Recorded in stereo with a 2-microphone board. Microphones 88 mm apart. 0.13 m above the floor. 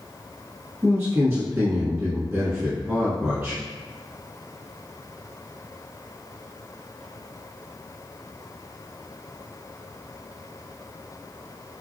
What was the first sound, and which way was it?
A man speaking, 30° right (ahead or behind).